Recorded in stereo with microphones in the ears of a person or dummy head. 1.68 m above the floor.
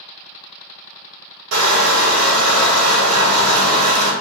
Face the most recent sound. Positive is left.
turn(degrees=-85)